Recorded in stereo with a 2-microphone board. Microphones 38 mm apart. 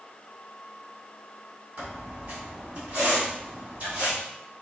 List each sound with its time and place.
1.8 s a squeak: 55° right (ahead or behind), 2.5 m